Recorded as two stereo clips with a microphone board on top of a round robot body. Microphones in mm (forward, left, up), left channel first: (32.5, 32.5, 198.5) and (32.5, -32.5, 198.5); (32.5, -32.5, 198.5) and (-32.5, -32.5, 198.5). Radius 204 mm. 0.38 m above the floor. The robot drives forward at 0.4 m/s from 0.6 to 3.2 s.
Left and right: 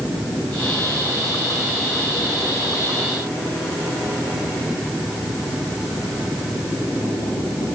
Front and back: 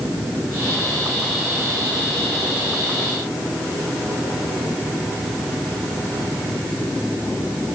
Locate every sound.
Only background noise.